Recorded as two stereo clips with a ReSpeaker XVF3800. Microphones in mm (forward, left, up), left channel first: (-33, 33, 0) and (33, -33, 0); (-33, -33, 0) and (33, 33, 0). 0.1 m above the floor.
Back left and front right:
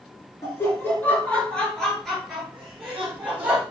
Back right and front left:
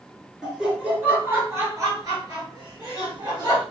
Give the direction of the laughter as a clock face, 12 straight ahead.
8 o'clock.